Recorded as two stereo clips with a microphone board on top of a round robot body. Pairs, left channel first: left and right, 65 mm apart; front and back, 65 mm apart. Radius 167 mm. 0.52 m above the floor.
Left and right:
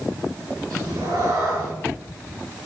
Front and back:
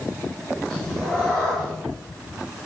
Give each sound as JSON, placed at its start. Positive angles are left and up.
{"t": 0.7, "sound": "a cat meowing", "azimuth_deg": -85, "distance_m": 4.5}